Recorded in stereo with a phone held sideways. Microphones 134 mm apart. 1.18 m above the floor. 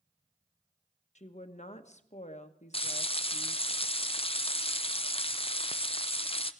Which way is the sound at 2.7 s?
45° left (ahead or behind).